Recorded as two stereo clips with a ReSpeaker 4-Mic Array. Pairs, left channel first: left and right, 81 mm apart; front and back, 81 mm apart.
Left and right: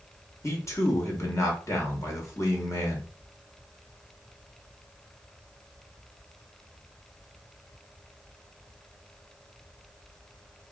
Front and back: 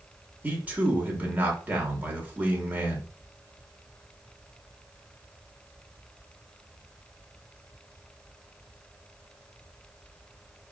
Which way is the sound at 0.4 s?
120° left.